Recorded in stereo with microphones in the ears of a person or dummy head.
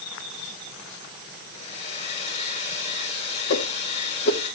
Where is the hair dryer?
40° left (ahead or behind), 5.5 m.